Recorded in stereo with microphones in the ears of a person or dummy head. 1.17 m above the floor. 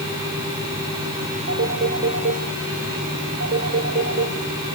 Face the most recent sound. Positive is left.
turn(degrees=-60)  # may be behind; listen again after turning